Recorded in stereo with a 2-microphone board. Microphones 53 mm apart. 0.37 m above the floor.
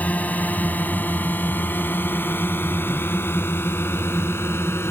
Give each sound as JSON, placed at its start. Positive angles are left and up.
{"t": 0.0, "sound": "a drone", "side_deg": 35}